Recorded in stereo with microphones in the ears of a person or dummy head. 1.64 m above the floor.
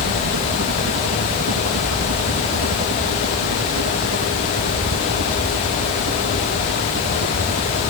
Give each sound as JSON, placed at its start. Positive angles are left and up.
{"t": 0.0, "sound": "a helicopter", "side_deg": -65}